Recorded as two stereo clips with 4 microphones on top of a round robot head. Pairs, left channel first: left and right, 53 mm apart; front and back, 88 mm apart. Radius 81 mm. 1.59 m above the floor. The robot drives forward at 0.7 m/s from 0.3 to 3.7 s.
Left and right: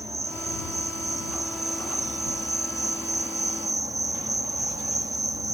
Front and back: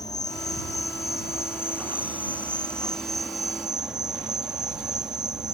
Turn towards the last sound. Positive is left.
turn(degrees=-95)